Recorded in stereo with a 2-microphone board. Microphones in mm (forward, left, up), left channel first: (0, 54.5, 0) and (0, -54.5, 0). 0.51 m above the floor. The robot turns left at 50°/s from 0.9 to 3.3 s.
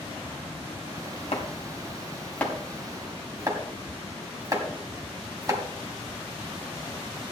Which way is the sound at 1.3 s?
65° left (ahead or behind).